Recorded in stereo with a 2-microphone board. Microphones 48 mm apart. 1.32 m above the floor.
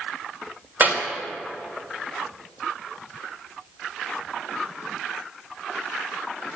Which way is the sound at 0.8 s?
40° right (ahead or behind).